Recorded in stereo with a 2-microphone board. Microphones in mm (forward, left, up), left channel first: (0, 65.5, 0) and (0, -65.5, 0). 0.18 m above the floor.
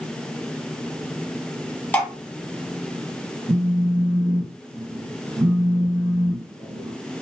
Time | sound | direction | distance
1.9 | dripping | 15° left (ahead or behind) | 1.7 m
3.5 | a phone buzzing | 25° right (ahead or behind) | 1.9 m